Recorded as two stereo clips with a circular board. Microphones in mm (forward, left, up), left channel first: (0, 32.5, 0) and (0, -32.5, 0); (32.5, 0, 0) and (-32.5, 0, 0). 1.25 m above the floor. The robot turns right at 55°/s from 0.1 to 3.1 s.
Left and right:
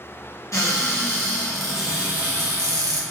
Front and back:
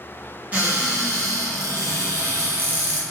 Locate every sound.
0.5 s a cupboard door: 115° left, 0.7 m; by 3.0 s 105° right, 0.7 m